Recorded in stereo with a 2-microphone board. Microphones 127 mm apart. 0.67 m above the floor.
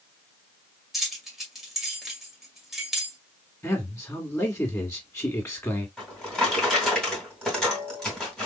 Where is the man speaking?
20° left (ahead or behind), 1.6 m.